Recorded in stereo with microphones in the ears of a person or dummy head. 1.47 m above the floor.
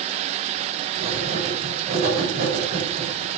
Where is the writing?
35° right (ahead or behind), 3.5 m.